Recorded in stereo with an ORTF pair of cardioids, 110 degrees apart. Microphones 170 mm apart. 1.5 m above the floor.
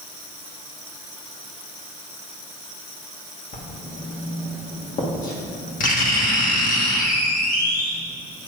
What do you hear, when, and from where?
3.5 s writing: 45° left, 1.7 m